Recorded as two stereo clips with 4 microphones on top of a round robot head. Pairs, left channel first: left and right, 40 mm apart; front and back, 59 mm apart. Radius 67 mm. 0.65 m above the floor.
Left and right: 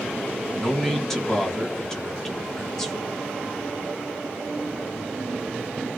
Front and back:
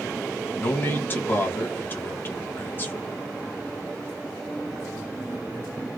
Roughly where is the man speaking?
Ahead.